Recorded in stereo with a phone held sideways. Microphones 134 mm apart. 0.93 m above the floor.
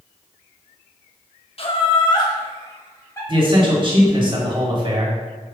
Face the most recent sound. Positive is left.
turn(degrees=-40)  # may be behind; listen again after turning